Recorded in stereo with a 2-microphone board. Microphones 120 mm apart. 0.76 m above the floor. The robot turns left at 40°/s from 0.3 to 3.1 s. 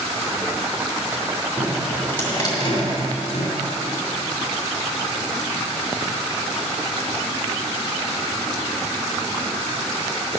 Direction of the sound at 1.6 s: 5° right (ahead or behind).